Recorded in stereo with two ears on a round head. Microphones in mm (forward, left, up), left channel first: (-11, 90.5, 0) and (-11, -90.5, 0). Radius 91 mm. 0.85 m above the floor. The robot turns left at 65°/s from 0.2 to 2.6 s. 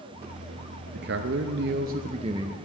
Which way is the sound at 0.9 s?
60° right.